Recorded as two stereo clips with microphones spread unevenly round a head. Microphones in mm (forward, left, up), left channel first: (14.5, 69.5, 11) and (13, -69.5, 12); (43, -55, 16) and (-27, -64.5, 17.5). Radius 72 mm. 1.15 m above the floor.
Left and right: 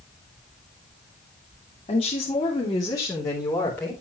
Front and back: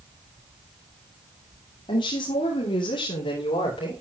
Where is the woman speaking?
40° left, 3 m; by 3.9 s 10° left, 4 m.